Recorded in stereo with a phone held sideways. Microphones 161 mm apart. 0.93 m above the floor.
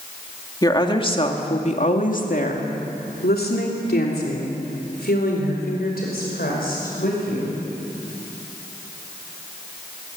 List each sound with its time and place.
0.6 s a woman speaking: 25° left (ahead or behind), 2 m; by 7.6 s 70° left (ahead or behind), 5.5 m